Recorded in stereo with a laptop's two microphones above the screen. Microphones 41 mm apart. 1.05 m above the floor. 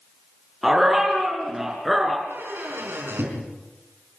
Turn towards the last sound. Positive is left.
turn(degrees=-70)  # may be behind; listen again after turning